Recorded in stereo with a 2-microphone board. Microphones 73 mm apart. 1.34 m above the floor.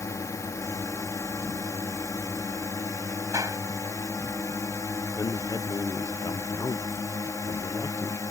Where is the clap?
50° right (ahead or behind).